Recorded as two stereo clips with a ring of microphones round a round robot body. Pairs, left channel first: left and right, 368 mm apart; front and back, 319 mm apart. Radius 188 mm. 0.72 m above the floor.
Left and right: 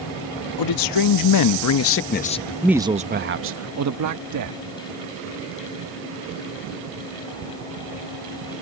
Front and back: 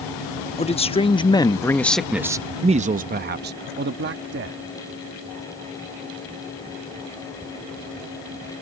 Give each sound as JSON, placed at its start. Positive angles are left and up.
{"t": 0.6, "sound": "a man speaking", "azimuth_deg": 70}